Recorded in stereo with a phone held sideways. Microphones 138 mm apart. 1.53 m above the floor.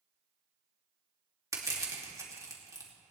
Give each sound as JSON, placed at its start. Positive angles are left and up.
{"t": 1.5, "sound": "crushing", "side_deg": -25, "distance_m": 2.5}